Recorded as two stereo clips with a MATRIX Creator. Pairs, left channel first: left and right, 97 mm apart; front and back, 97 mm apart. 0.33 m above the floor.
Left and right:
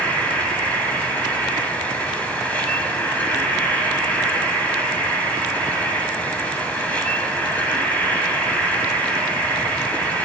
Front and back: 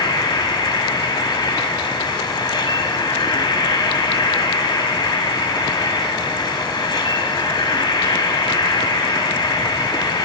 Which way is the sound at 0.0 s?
20° left.